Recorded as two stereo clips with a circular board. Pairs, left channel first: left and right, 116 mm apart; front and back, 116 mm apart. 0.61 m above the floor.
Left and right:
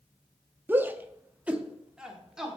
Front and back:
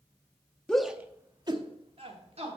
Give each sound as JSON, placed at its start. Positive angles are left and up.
{"t": 0.7, "sound": "a shout", "azimuth_deg": -65, "distance_m": 0.6}